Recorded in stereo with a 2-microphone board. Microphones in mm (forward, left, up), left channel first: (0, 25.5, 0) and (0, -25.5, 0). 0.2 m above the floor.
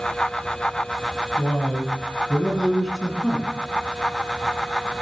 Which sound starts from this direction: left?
A man speaking, at 1.4 s.